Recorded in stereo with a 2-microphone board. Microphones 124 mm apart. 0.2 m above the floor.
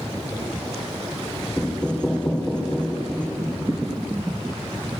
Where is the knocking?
10° left (ahead or behind), 2.0 m.